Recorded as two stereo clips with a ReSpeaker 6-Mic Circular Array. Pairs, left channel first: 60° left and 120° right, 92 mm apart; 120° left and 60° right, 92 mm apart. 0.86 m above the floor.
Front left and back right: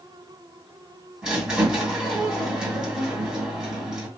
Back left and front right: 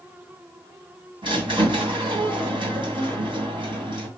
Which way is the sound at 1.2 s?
40° right.